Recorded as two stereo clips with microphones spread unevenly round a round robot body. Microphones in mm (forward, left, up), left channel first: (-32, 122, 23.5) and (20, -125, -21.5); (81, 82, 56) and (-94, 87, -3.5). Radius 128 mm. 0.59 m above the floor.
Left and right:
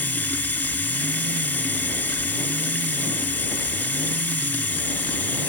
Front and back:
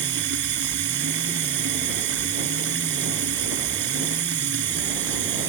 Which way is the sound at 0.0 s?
175° right.